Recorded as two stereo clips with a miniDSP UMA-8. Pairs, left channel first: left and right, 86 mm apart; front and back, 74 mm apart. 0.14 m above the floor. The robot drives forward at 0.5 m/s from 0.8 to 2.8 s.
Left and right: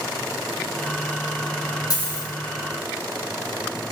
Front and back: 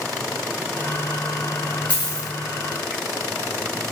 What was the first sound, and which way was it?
A dropped coin, 70° left.